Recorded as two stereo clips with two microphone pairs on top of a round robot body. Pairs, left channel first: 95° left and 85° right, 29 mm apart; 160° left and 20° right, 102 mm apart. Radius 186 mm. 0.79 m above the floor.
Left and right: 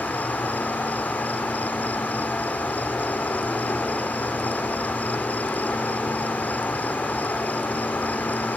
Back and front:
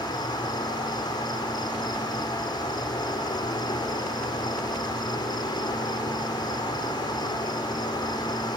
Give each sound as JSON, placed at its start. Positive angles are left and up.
{"t": 0.0, "sound": "an insect", "azimuth_deg": 110}